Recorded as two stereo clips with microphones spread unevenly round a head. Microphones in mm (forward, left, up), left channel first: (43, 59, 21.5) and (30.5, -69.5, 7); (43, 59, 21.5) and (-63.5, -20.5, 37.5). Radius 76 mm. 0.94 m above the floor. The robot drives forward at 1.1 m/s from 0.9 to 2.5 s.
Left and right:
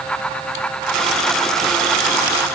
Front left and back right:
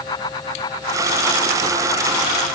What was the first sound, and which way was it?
Only background noise.